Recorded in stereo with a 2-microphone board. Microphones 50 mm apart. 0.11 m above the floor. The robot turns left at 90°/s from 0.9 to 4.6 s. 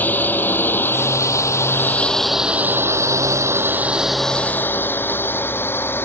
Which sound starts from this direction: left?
A drone, at 0.0 s.